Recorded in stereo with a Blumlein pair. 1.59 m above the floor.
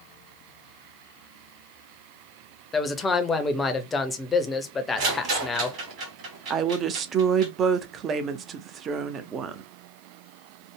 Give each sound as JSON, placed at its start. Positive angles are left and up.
{"t": 2.7, "sound": "a man speaking", "azimuth_deg": 15, "distance_m": 0.6}
{"t": 5.0, "sound": "a rattle", "azimuth_deg": -40, "distance_m": 1.9}
{"t": 6.5, "sound": "a woman speaking", "azimuth_deg": -25, "distance_m": 0.5}